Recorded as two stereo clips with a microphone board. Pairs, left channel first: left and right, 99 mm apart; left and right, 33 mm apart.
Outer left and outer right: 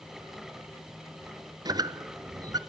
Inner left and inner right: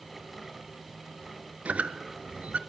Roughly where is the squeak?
Right.